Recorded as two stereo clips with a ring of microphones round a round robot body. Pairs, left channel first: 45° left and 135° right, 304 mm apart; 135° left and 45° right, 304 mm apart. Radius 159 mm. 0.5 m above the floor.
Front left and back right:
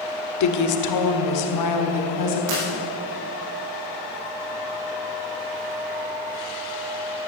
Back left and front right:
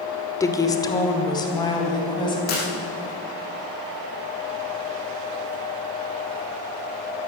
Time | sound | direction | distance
0.4 | a woman speaking | 55° left | 1.5 m
2.5 | breaking glass | 165° right | 6 m